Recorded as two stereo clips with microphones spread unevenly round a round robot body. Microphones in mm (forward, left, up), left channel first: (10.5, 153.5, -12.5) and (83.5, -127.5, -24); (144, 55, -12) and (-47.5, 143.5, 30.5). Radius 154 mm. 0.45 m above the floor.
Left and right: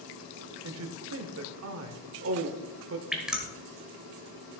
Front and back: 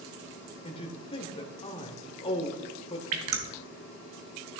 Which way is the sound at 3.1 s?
160° right.